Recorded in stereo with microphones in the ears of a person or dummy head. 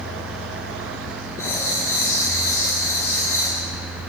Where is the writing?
20° left (ahead or behind), 8 m.